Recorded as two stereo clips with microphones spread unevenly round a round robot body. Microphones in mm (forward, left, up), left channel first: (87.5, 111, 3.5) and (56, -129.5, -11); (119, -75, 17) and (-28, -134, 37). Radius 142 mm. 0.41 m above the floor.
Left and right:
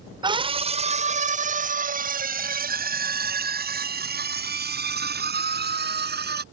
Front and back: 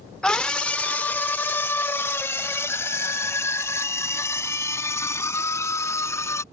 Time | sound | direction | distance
0.2 | a scream | 50° right | ?